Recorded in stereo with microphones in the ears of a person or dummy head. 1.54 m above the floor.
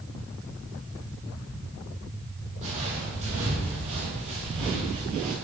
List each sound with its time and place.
2.6 s footsteps: 35° right (ahead or behind), 3 m; by 5.3 s 30° right (ahead or behind), 1.9 m